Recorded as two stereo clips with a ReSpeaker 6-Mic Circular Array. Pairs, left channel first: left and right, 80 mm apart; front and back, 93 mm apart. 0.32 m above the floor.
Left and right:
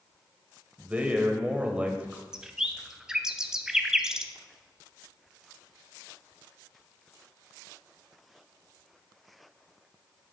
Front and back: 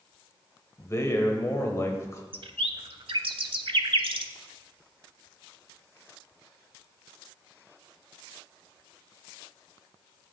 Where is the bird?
170° right, 0.5 m.